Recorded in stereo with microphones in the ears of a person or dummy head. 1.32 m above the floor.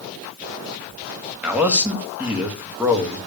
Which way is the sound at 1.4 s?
10° right (ahead or behind).